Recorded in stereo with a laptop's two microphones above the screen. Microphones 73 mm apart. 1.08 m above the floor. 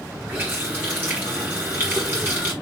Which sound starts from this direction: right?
A running tap, at 0.3 s.